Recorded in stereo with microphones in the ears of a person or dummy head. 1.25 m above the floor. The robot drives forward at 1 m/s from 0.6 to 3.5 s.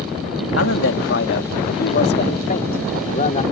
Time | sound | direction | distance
0.6 | a man speaking | 70° left (ahead or behind) | ?